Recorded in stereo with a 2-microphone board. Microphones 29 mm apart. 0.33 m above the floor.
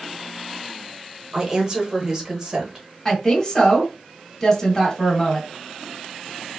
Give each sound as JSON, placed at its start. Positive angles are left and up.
{"t": 1.3, "sound": "a woman speaking", "side_deg": -25, "distance_m": 0.9}
{"t": 3.0, "sound": "a woman speaking", "side_deg": 15, "distance_m": 1.5}